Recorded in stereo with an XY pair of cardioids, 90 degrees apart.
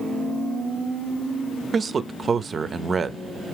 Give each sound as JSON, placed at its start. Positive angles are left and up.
{"t": 1.7, "sound": "a man speaking", "azimuth_deg": -45, "distance_m": 0.5}